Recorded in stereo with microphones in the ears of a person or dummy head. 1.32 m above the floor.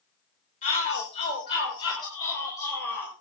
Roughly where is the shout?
Left.